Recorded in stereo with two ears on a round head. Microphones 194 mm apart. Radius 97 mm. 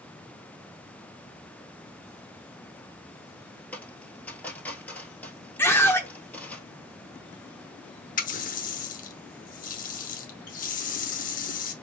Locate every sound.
3.7 s a dropped coin: 5° left (ahead or behind), 1.3 m
5.6 s a scream: 10° left (ahead or behind), 0.8 m
8.2 s a running tap: 40° left (ahead or behind), 0.8 m